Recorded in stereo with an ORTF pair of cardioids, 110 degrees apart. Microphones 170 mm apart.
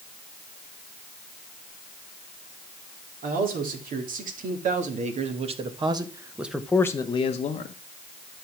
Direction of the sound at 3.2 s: 60° right.